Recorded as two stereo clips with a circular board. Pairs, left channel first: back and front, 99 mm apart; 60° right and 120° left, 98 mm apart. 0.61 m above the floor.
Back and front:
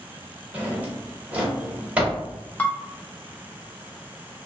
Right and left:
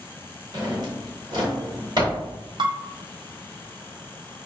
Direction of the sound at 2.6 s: 110° left.